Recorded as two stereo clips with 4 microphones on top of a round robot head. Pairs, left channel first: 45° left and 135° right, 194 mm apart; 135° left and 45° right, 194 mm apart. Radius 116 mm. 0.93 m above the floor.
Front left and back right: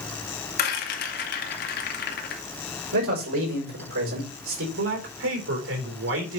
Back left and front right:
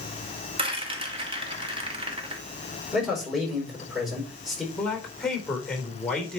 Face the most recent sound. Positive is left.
turn(degrees=-140)